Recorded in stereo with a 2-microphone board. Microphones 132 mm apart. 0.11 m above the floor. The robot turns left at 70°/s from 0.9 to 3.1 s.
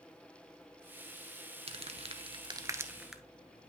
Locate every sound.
1.7 s crumpling: 50° right (ahead or behind), 0.7 m; by 3.2 s 5° right (ahead or behind), 0.7 m